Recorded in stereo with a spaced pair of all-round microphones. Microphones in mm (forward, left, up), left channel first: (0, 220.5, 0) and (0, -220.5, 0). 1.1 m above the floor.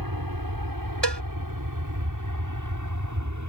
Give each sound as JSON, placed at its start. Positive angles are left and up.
{"t": 0.0, "sound": "an aircraft", "side_deg": -50}
{"t": 1.0, "sound": "a cowbell", "side_deg": -70}